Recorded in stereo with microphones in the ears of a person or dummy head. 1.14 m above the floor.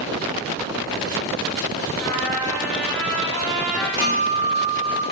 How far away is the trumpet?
About 1.5 m.